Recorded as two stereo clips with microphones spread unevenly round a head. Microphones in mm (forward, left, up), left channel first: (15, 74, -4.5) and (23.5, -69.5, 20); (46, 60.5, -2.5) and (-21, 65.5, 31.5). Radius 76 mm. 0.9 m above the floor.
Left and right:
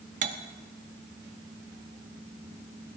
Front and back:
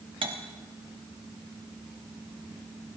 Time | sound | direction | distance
0.2 | cutlery clinking | 135° right | 0.9 m